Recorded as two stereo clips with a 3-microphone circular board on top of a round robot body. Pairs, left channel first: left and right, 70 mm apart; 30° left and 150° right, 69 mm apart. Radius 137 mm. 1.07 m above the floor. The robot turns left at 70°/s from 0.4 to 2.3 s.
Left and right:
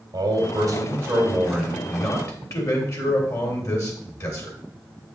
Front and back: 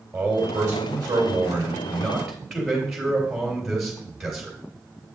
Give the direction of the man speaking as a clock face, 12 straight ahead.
3 o'clock.